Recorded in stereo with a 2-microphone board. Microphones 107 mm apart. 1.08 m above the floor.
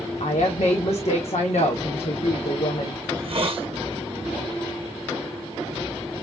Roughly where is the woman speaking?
Left.